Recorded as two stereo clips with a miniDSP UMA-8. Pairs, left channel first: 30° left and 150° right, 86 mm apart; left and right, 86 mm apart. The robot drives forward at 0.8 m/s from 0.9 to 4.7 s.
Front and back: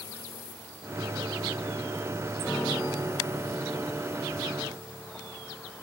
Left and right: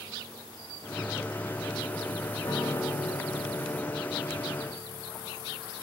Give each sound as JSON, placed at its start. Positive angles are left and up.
{"t": 2.4, "sound": "a piano", "azimuth_deg": 110, "distance_m": 4.0}